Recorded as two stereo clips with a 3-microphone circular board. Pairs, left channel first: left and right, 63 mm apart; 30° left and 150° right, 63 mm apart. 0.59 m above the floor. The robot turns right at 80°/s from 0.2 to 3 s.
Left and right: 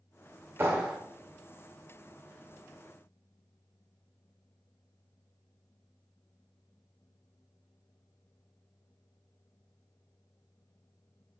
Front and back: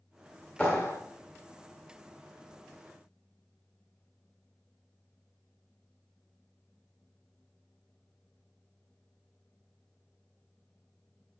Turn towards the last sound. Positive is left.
turn(degrees=155)